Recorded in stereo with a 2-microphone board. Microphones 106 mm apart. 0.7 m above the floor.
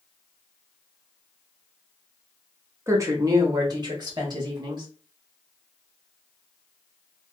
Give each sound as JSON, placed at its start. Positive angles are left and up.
{"t": 2.9, "sound": "a woman speaking", "side_deg": -25, "distance_m": 0.9}